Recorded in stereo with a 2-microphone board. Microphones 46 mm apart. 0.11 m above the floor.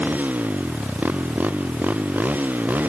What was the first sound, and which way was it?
A motorcycle, 40° right (ahead or behind).